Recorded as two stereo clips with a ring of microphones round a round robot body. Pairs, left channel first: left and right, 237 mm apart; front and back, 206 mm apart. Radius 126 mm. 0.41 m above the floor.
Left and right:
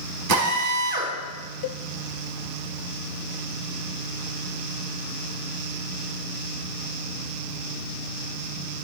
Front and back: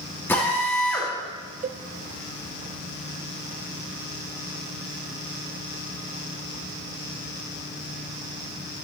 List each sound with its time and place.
0.3 s a drill: 80° right, 3.5 m
1.6 s a cowbell: 125° left, 0.5 m